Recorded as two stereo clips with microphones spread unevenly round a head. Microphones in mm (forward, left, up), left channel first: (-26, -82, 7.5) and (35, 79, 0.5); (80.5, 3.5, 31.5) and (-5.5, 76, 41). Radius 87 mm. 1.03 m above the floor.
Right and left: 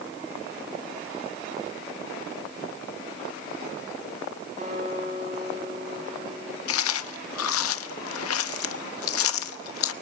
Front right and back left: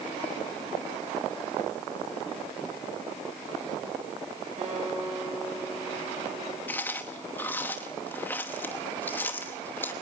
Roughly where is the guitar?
Behind left.